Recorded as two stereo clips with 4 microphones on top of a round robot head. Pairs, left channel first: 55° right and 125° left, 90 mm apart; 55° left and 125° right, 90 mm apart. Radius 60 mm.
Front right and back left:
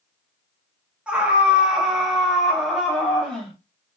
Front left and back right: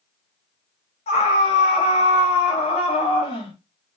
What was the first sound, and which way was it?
A scream, 45° left.